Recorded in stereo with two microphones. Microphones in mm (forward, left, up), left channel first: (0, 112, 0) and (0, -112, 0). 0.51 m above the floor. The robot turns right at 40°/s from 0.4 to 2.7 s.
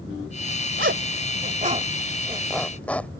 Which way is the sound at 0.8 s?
60° right (ahead or behind).